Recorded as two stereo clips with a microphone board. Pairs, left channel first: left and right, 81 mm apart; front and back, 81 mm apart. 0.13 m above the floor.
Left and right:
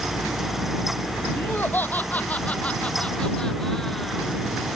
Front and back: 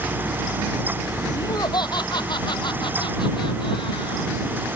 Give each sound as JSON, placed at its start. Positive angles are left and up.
{"t": 1.4, "sound": "laughter", "azimuth_deg": 25}